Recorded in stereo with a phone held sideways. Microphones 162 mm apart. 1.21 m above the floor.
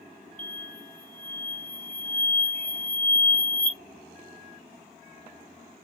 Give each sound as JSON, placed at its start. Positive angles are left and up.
{"t": 0.4, "sound": "an explosion", "side_deg": 10, "distance_m": 0.7}